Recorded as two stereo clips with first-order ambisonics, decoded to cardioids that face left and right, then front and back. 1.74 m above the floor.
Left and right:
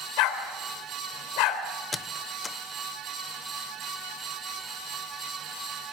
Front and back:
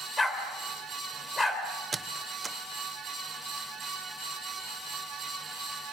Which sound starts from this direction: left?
A dog barking, at 0.2 s.